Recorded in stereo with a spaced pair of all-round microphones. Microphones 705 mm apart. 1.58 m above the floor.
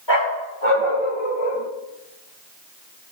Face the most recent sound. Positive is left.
turn(degrees=55)  # may be behind; listen again after turning